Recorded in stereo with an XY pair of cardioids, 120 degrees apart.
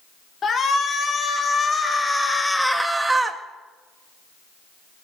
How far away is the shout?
About 3 m.